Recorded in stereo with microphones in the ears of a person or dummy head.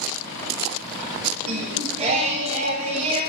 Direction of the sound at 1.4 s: 40° right (ahead or behind).